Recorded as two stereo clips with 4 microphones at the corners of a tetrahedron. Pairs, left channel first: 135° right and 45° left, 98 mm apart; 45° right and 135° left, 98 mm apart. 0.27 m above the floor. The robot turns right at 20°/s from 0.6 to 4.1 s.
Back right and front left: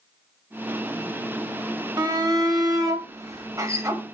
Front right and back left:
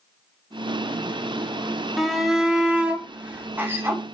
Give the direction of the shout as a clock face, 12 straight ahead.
10 o'clock.